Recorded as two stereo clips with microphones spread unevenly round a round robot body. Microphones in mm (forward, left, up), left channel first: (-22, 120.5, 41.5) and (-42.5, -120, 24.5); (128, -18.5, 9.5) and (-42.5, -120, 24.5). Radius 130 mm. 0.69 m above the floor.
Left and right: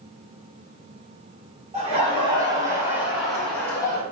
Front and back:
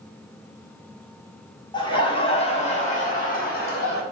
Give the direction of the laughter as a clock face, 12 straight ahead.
1 o'clock.